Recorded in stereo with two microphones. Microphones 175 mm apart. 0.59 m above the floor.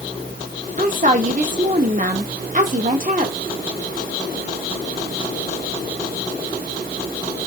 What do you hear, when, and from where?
0.8 s a woman speaking: 45° right (ahead or behind), 1.5 m